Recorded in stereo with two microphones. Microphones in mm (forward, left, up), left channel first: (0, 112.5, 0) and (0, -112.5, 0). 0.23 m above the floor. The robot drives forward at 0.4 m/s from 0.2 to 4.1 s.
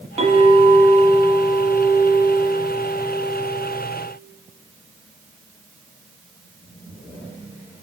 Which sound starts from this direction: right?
A clink, at 0.2 s.